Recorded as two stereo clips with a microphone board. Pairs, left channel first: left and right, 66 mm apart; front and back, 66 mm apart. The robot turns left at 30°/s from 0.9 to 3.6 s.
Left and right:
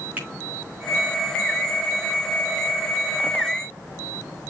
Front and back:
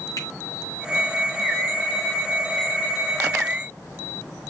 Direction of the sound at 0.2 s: 25° right.